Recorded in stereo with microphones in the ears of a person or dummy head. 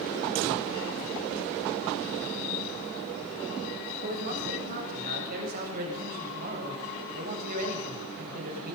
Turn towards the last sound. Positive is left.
turn(degrees=-50)  # may be behind; listen again after turning